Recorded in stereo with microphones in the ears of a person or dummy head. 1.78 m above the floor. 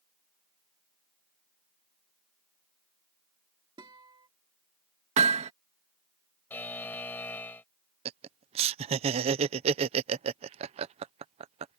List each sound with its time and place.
3.8 s a guitar: 15° right (ahead or behind)
5.2 s hammering: 35° right (ahead or behind)
6.5 s a buzzer: 10° left (ahead or behind)
8.1 s laughter: 30° right (ahead or behind)